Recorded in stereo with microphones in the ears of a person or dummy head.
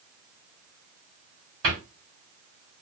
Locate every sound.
1.6 s a cupboard door: 55° right (ahead or behind), 2.5 m